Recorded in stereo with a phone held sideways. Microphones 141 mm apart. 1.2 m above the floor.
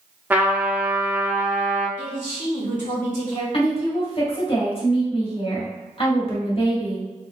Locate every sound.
0.3 s a trumpet: 10° right (ahead or behind), 0.9 m
2.0 s a man speaking: 65° left (ahead or behind), 1.9 m
3.5 s a woman speaking: 40° left (ahead or behind), 1.5 m